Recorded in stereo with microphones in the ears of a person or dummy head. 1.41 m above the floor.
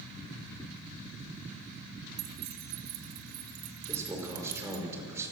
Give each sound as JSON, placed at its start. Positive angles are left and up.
{"t": 2.2, "sound": "keys jangling", "side_deg": -50, "distance_m": 2.0}
{"t": 3.9, "sound": "a man speaking", "side_deg": -20, "distance_m": 4.5}